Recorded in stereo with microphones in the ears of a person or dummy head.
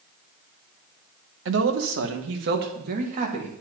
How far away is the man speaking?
About 1.7 m.